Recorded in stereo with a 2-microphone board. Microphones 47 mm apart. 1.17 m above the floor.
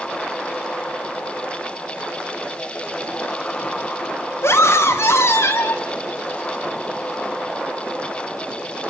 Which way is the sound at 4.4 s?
75° left (ahead or behind).